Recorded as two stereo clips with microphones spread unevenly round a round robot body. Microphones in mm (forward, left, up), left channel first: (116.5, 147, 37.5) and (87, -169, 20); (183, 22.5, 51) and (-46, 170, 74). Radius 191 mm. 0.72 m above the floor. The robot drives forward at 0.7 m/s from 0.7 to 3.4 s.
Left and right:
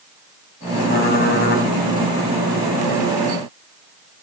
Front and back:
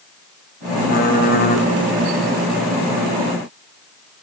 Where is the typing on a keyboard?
20° left, 2.5 m; by 1.7 s 25° left, 2.0 m.